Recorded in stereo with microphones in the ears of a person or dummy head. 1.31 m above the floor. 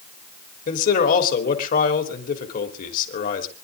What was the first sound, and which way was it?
A man speaking, 45° left (ahead or behind).